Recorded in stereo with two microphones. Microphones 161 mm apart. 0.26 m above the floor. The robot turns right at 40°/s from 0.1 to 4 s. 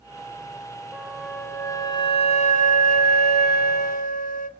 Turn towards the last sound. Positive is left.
turn(degrees=115)